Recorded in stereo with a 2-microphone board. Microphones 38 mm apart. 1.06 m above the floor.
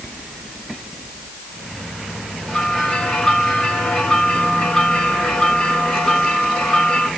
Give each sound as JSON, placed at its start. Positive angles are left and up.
{"t": 2.5, "sound": "a bell", "side_deg": 15, "distance_m": 5.0}